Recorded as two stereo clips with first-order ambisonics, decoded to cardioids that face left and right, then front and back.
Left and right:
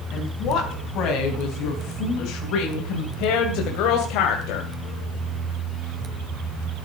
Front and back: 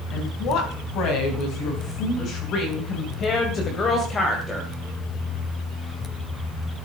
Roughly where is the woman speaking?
Ahead left.